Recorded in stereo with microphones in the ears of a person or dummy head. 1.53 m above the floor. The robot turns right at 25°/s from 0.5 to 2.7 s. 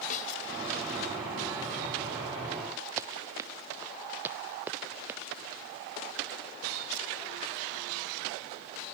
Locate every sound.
0.1 s a snare drum: 45° left (ahead or behind)
3.0 s running footsteps: 15° right (ahead or behind); by 5.2 s 10° right (ahead or behind)